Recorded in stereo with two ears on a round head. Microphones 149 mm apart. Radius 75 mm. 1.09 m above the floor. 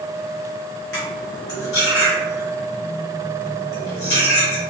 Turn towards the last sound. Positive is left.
turn(degrees=70)  # may be behind; listen again after turning